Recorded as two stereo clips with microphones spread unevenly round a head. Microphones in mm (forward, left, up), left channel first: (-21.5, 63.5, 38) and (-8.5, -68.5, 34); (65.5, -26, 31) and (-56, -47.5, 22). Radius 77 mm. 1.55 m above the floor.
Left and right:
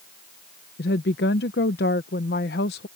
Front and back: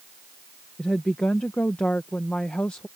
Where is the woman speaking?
90° left.